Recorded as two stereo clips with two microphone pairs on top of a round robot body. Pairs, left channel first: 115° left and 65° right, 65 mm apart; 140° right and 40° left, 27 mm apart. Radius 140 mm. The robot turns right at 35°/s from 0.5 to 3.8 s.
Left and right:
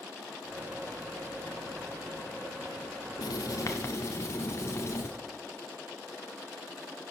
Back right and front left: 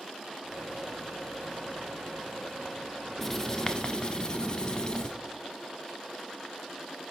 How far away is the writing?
About 0.5 m.